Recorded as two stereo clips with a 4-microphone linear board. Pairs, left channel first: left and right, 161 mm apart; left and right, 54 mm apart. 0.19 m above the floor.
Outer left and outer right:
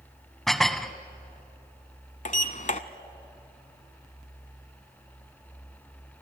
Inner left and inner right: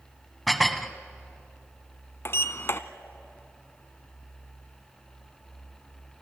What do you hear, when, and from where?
0.5 s dishes clattering: centre (ahead or behind), 0.9 m
2.2 s a sliding door: 50° left (ahead or behind), 0.9 m